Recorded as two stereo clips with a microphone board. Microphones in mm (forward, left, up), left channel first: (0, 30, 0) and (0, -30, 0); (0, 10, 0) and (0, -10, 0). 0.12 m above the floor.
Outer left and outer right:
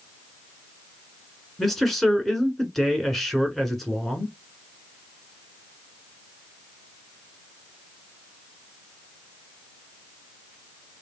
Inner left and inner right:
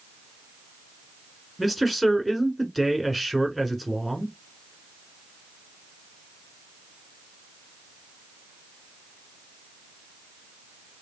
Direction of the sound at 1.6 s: 5° left (ahead or behind).